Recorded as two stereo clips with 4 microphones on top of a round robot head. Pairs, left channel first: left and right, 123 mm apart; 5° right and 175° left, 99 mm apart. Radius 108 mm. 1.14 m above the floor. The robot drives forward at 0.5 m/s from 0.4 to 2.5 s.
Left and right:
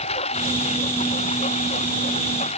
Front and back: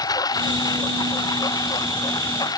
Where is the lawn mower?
45° left.